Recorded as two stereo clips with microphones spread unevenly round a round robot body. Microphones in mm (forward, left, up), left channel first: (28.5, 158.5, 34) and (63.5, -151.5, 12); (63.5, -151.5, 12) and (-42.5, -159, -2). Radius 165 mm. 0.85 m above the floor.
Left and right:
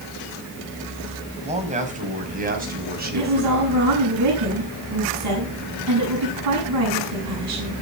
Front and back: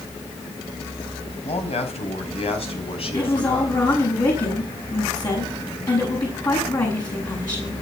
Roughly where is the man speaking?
Ahead.